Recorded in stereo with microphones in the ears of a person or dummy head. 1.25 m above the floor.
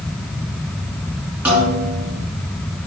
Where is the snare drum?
10° right (ahead or behind), 3 m.